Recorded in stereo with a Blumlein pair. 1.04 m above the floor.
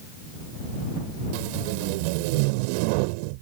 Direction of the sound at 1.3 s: 45° right.